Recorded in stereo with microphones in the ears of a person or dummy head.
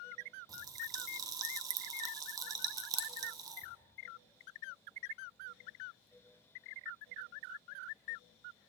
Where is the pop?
15° right (ahead or behind), 0.9 m.